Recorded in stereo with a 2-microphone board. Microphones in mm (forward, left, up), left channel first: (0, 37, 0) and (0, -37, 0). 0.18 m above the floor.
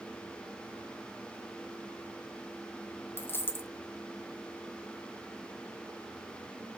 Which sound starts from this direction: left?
A dropped coin, at 3.2 s.